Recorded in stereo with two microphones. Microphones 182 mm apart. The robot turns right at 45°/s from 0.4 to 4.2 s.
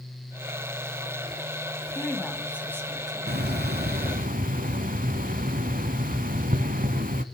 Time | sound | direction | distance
1.9 | a woman speaking | 160° left | 1.8 m
3.3 | a hiss | 100° right | 0.8 m